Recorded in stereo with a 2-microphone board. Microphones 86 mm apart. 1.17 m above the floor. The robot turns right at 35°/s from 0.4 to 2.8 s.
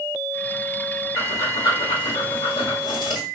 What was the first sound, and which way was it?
Breathing, 40° left.